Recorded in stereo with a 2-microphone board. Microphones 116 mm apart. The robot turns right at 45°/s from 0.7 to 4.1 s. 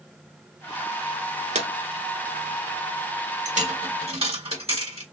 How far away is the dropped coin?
About 1.2 m.